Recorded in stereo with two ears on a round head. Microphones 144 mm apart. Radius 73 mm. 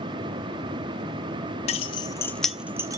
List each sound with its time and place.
1.7 s keys jangling: 40° left (ahead or behind), 0.6 m; by 3.0 s 20° right (ahead or behind), 0.6 m